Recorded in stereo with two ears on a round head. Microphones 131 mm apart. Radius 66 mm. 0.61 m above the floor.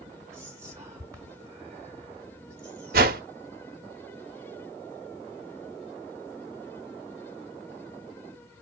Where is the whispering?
15° right (ahead or behind), 2 m.